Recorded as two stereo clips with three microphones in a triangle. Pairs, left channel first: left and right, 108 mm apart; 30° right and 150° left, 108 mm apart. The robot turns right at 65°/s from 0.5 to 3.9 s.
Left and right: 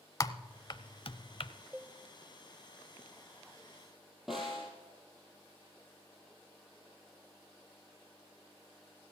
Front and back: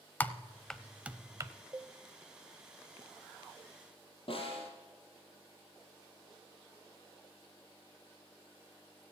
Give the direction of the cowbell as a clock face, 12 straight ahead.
5 o'clock.